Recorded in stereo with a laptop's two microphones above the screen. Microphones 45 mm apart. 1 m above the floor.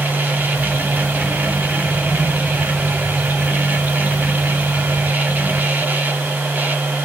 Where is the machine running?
40° right (ahead or behind), 1.0 m.